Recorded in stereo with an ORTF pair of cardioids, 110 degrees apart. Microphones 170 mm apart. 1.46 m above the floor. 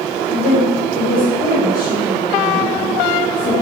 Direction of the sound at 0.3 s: 55° left.